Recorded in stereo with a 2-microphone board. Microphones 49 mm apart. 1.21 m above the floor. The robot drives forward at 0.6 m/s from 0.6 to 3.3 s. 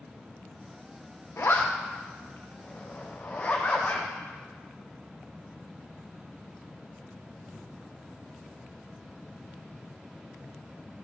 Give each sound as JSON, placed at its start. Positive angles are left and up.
{"t": 1.4, "sound": "a zipper", "side_deg": 60, "distance_m": 1.1}